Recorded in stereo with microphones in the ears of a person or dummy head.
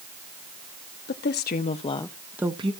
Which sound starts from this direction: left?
A woman speaking, at 1.1 s.